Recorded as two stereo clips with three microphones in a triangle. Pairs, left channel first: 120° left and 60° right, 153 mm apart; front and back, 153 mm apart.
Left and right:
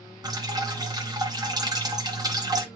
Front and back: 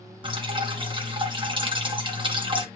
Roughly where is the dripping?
Behind right.